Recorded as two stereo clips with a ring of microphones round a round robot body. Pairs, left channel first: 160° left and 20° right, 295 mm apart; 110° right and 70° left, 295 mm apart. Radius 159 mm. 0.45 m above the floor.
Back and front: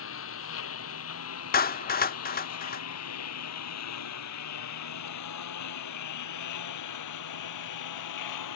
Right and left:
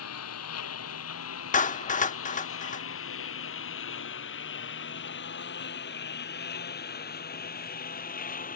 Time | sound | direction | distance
0.0 | a lawn mower | 155° right | ?
1.5 | a clap | 160° right | ?